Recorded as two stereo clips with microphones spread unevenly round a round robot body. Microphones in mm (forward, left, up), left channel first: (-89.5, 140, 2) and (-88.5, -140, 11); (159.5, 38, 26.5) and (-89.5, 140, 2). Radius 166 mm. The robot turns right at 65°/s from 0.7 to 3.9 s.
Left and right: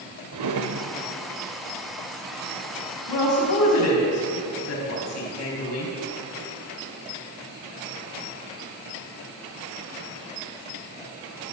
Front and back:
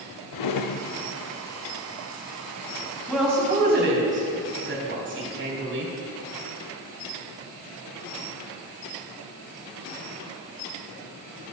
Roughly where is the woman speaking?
Ahead left.